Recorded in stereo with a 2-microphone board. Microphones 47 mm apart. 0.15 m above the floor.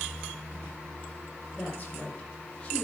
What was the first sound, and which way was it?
A woman speaking, 35° left (ahead or behind).